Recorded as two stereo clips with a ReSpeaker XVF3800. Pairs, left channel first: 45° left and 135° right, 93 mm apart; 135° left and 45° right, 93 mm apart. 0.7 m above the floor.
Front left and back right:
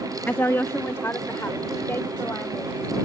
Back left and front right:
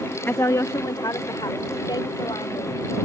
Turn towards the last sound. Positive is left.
turn(degrees=105)